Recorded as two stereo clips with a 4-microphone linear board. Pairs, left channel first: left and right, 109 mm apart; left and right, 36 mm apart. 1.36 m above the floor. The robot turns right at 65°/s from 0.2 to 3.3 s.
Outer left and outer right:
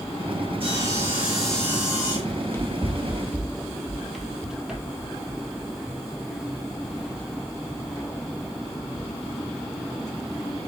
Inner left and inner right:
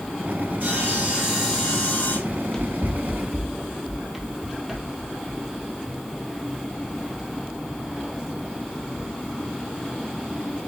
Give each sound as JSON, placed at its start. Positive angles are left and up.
{"t": 0.6, "sound": "sawing", "azimuth_deg": -55, "distance_m": 3.0}
{"t": 2.3, "sound": "running footsteps", "side_deg": 30, "distance_m": 1.5}